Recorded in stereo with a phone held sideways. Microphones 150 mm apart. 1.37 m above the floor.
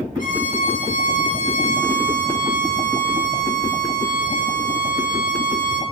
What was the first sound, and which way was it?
A violin, 60° left (ahead or behind).